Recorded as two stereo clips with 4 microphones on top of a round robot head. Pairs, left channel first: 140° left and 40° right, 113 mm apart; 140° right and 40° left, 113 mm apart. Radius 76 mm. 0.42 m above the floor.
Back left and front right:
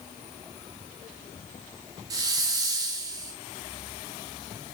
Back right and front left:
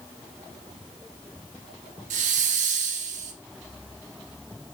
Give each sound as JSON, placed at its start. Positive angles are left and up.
{"t": 2.1, "sound": "a hiss", "azimuth_deg": 20, "distance_m": 0.5}